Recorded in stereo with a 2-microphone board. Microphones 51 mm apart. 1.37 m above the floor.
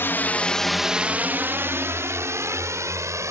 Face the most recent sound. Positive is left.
turn(degrees=-70)  # may be behind; listen again after turning